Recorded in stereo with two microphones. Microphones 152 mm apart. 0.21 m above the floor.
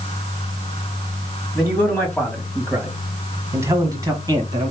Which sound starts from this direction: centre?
A man speaking, at 1.6 s.